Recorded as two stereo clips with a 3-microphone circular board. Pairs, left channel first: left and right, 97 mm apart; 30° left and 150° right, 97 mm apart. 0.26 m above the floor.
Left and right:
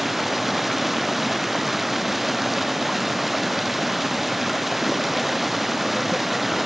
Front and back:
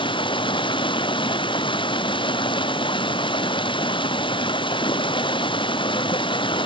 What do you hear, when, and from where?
0.0 s running water: straight ahead